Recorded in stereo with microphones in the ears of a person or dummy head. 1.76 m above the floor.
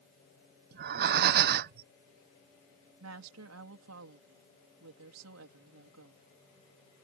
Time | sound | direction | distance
0.7 | breathing | 50° right (ahead or behind) | ?
3.0 | a woman speaking | 80° right | ?